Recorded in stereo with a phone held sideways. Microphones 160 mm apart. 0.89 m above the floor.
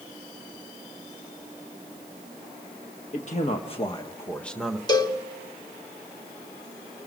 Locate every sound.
3.1 s a man speaking: 50° left (ahead or behind), 1.5 m; by 4.8 s 5° right (ahead or behind), 1.1 m
4.9 s a cowbell: 25° left (ahead or behind), 1.5 m